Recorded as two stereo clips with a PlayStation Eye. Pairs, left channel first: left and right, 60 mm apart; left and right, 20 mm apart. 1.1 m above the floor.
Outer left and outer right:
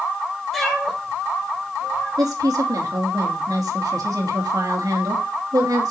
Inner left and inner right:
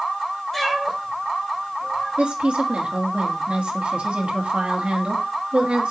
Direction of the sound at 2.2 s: 85° right.